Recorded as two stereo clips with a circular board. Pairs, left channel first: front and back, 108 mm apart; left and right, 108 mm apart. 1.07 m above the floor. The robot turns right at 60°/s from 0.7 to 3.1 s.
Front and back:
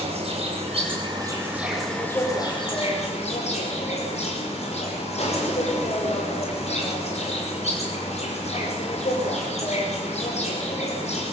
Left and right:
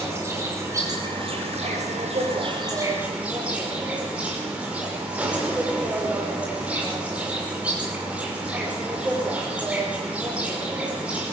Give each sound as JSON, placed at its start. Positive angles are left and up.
{"t": 0.0, "sound": "an insect", "azimuth_deg": -155, "distance_m": 5.5}